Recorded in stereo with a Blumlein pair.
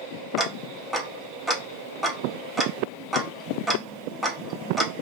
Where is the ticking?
Straight ahead, 0.6 m.